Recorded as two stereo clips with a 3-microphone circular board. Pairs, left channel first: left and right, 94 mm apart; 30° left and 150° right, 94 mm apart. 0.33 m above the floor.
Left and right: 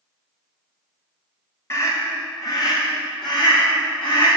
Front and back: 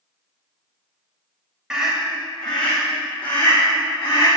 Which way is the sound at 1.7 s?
135° left.